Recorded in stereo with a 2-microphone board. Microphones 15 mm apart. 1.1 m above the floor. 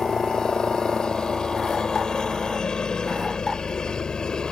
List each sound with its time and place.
0.0 s a helicopter: 40° left (ahead or behind)